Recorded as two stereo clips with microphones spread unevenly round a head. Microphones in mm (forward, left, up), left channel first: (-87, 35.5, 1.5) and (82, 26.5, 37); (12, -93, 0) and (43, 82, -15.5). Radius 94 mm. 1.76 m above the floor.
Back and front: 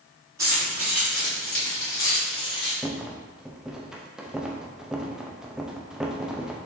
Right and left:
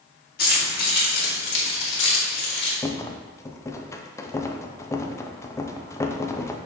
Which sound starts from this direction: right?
Keys jangling, at 0.4 s.